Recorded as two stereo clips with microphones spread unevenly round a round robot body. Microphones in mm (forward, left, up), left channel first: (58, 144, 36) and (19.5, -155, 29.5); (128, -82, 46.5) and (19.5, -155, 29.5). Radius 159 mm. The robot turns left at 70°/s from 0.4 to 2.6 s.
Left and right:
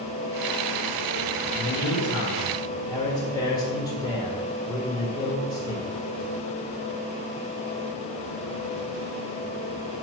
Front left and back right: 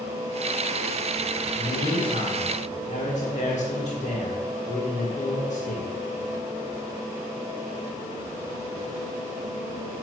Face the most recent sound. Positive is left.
turn(degrees=5)